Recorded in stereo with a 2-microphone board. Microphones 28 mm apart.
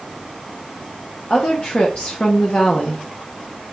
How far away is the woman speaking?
About 0.8 m.